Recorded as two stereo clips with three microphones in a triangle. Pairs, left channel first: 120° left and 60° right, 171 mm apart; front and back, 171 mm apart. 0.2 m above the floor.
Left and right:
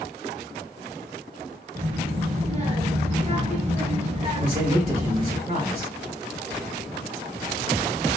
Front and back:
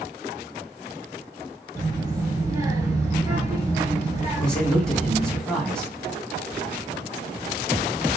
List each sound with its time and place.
1.8 s a child speaking: 105° right, 1.8 m
4.4 s a man speaking: 85° right, 3 m